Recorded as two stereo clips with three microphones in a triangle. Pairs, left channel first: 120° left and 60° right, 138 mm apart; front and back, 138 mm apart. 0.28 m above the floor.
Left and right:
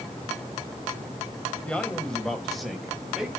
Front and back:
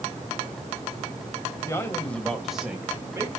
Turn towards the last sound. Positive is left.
turn(degrees=-140)